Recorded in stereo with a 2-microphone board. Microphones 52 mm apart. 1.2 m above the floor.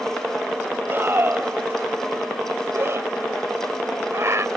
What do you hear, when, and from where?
0.9 s a scream: 45° right (ahead or behind); by 4.5 s 60° right (ahead or behind)